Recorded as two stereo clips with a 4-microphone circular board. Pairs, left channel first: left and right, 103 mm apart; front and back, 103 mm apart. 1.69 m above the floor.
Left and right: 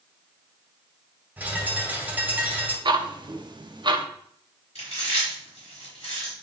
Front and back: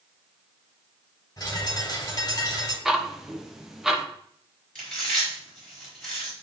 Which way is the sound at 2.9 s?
95° right.